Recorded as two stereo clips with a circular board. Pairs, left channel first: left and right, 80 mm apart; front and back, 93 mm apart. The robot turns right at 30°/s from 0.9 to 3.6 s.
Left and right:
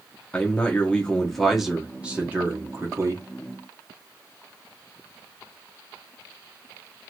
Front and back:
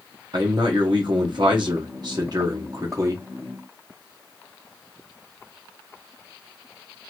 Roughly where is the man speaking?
Behind.